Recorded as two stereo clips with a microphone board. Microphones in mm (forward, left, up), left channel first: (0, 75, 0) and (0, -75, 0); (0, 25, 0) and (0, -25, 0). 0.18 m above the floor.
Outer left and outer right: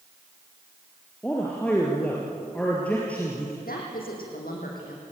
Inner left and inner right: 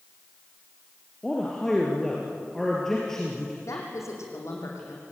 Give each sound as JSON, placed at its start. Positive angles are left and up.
{"t": 1.2, "sound": "a man speaking", "side_deg": 10, "distance_m": 3.5}
{"t": 3.6, "sound": "a woman speaking", "side_deg": 75, "distance_m": 7.5}